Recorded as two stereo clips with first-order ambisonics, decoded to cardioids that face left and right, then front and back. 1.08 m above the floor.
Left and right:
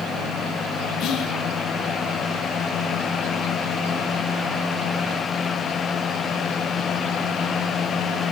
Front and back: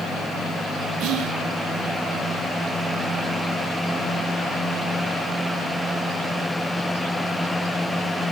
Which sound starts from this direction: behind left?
Whispering, at 1.0 s.